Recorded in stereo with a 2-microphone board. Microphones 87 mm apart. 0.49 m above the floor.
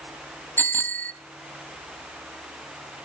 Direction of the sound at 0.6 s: 25° left (ahead or behind).